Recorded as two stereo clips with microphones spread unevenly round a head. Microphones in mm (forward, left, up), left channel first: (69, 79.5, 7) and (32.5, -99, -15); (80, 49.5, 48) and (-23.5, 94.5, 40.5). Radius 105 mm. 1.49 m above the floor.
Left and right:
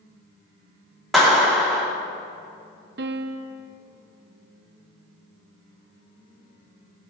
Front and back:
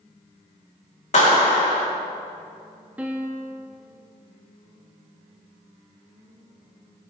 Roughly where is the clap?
Ahead.